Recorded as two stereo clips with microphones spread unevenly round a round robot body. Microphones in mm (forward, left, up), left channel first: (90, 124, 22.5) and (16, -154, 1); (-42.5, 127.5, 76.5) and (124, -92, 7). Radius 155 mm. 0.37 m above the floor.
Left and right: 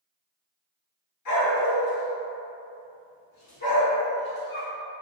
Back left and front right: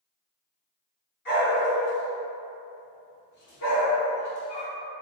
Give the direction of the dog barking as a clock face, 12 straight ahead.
9 o'clock.